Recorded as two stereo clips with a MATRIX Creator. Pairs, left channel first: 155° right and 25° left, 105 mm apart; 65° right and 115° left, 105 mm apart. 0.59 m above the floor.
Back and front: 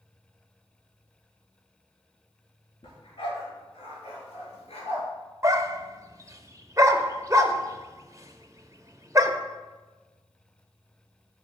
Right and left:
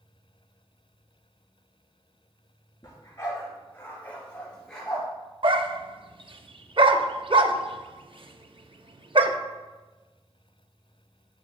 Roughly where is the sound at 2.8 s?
Behind right.